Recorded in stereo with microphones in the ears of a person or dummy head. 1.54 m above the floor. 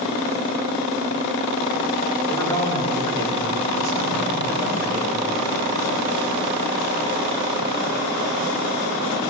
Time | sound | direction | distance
2.3 | a man speaking | 20° left (ahead or behind) | 3 m